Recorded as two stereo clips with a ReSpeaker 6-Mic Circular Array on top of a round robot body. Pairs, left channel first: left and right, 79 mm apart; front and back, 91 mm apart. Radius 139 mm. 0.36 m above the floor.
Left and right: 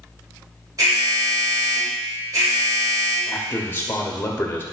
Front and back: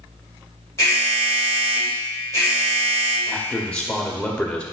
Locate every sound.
0.8 s an alarm: 50° right, 4 m
3.3 s a man speaking: 70° left, 1.4 m